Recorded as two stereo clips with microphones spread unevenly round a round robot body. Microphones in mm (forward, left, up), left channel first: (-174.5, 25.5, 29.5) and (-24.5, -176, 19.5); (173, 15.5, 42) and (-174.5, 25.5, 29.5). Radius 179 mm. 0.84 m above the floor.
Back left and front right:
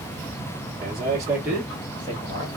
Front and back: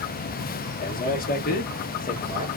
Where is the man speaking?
40° right, 0.9 m; by 2.5 s 60° left, 1.1 m.